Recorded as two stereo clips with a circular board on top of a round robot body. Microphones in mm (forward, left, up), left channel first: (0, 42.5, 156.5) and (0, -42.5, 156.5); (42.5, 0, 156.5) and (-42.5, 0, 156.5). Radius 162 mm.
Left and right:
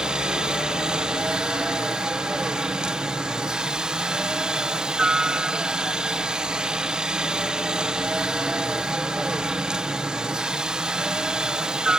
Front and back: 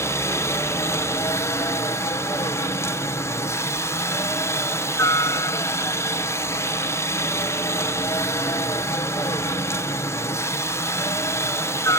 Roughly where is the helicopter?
Ahead.